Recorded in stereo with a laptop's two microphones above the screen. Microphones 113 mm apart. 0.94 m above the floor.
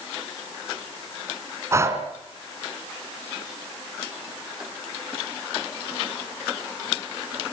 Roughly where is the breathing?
Right.